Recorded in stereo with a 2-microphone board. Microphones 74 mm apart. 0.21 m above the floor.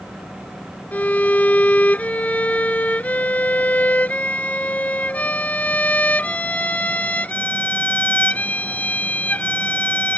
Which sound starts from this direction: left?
A violin, at 0.9 s.